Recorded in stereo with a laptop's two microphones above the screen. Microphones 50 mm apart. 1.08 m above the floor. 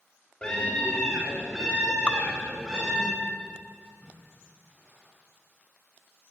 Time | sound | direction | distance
0.4 | a scream | 20° left (ahead or behind) | 3 m
2.1 | dripping | 25° left (ahead or behind) | 0.6 m
3.8 | a splash | 30° right (ahead or behind) | 8.5 m